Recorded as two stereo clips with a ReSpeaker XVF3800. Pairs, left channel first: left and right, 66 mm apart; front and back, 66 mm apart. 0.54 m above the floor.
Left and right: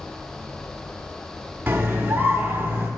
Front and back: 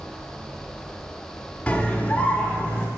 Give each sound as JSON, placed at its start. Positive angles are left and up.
{"t": 1.7, "sound": "a scream", "azimuth_deg": -55, "distance_m": 0.9}